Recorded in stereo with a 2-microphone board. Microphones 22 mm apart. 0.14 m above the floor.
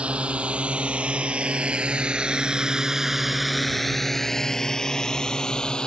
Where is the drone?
75° right (ahead or behind); by 5.9 s 50° left (ahead or behind).